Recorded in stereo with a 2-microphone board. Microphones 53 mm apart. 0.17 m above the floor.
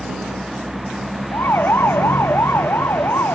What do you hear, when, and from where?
0.0 s a vehicle: 5° right (ahead or behind); by 3.4 s 5° left (ahead or behind)
1.3 s a siren: 45° left (ahead or behind); by 3.4 s 55° left (ahead or behind)